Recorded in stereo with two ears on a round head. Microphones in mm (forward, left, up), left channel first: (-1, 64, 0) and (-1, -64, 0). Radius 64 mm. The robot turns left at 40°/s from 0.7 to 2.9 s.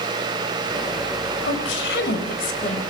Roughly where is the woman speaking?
Left.